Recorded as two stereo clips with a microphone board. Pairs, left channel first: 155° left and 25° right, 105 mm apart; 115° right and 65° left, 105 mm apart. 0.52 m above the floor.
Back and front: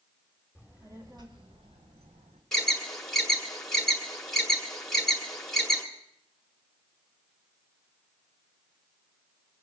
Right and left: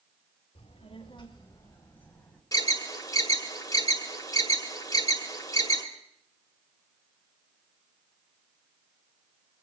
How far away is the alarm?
About 1.7 m.